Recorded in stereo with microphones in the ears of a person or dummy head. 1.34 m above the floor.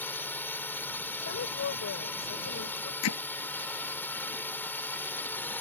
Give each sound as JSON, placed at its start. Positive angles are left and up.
{"t": 0.0, "sound": "a drone", "side_deg": 5}
{"t": 1.2, "sound": "a woman speaking", "side_deg": 60}
{"t": 3.0, "sound": "hammering", "side_deg": 70}